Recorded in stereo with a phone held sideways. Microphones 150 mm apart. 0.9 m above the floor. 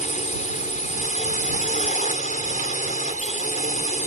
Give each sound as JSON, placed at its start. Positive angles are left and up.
{"t": 0.0, "sound": "a drone", "side_deg": 60}